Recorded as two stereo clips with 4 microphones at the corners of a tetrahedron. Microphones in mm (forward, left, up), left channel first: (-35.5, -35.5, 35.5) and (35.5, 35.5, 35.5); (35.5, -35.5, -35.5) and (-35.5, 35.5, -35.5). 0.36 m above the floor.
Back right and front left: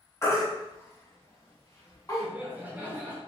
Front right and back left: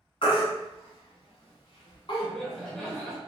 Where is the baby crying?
75° right, 0.9 m.